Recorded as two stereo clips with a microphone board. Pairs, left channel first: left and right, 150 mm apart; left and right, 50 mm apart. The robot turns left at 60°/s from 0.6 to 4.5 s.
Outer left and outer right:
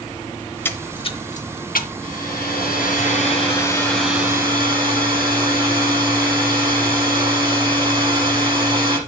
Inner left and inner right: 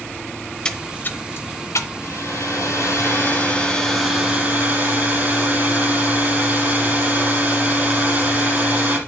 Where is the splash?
10° left (ahead or behind), 0.8 m; by 1.9 s 75° left (ahead or behind), 0.8 m.